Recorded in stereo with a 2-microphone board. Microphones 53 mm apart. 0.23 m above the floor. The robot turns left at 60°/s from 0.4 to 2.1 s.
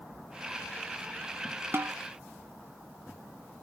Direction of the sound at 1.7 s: 50° right (ahead or behind).